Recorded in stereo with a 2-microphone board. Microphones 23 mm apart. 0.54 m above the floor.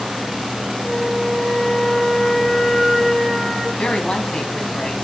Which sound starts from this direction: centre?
A flute, at 0.8 s.